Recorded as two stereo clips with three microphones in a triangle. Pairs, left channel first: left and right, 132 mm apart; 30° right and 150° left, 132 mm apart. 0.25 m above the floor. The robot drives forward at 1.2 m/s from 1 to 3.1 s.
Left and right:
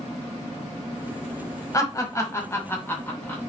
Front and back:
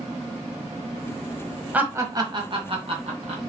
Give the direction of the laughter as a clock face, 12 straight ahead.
9 o'clock.